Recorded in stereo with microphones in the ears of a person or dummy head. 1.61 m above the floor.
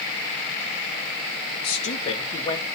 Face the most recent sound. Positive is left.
turn(degrees=20)  # may be behind; listen again after turning